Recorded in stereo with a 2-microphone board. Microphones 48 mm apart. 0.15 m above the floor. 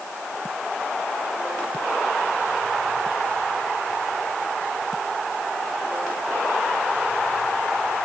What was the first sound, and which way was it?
Only background noise.